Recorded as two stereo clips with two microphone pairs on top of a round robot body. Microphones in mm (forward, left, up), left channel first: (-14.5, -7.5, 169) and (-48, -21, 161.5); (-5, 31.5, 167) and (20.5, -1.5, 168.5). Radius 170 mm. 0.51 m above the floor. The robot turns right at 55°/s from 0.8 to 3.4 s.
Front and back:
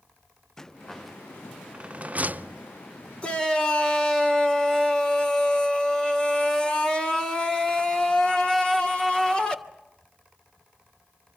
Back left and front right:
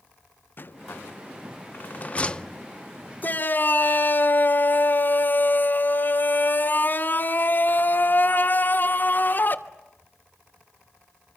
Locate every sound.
0.6 s a rattle: 105° left, 0.7 m; by 2.6 s 155° right, 0.7 m
3.2 s a shout: 80° left, 3 m; by 9.6 s 90° left, 3 m